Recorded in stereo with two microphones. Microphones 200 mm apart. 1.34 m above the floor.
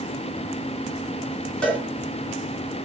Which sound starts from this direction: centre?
A cowbell, at 1.6 s.